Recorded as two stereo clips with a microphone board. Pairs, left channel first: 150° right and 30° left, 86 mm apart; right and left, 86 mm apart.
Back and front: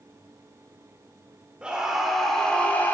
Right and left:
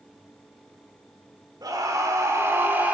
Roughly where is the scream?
Left.